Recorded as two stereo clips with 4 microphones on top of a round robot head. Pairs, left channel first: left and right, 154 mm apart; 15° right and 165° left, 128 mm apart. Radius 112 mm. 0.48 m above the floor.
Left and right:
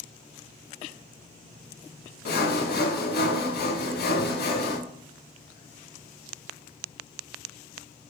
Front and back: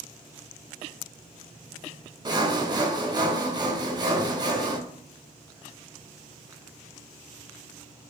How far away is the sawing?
About 0.7 m.